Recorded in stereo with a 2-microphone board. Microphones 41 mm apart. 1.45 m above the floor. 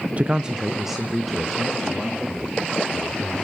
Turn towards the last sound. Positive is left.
turn(degrees=5)  # may be behind; listen again after turning